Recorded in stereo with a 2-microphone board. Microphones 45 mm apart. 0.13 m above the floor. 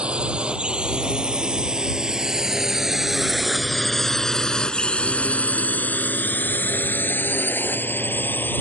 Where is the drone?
25° right (ahead or behind); by 8.6 s 45° left (ahead or behind).